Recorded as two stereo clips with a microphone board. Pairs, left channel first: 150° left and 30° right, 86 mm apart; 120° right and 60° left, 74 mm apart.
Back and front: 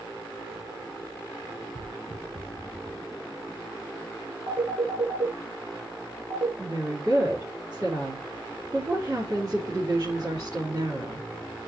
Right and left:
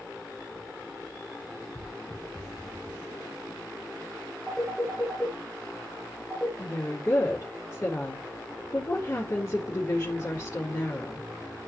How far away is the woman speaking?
About 3 m.